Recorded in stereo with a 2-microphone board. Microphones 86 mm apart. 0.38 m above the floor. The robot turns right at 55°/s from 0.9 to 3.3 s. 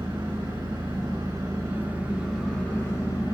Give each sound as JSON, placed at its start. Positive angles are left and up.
{"t": 0.0, "sound": "an engine running", "azimuth_deg": -75, "distance_m": 3.5}